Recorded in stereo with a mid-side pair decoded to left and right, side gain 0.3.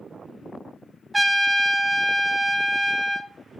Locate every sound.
1.1 s a trumpet: 15° right, 0.7 m